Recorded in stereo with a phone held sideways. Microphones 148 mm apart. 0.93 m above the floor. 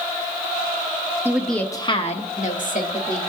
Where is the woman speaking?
15° right (ahead or behind), 1.0 m; by 3.2 s 75° left (ahead or behind), 2.5 m.